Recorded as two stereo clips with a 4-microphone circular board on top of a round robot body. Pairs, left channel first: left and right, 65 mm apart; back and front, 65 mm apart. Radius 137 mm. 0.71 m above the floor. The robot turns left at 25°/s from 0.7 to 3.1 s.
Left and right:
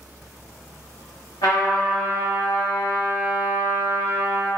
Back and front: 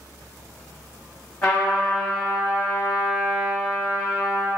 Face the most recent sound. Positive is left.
turn(degrees=65)